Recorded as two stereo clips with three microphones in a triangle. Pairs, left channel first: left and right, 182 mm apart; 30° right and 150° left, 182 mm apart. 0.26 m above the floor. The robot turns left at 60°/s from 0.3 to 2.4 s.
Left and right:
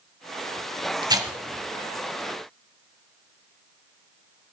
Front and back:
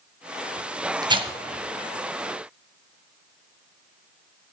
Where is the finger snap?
No finger snap in this recording.